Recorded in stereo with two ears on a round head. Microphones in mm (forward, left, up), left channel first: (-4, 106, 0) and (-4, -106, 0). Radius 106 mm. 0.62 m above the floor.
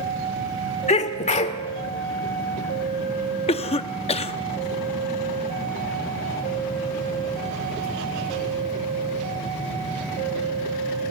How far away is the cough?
About 0.7 m.